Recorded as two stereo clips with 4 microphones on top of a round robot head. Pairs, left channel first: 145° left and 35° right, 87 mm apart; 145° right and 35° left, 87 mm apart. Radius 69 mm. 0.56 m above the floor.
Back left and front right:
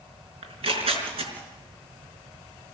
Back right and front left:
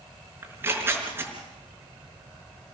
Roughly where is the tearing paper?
Ahead right.